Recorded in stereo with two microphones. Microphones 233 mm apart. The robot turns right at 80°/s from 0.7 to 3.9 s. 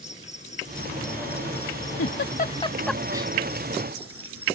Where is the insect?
30° left; by 4.6 s 75° right.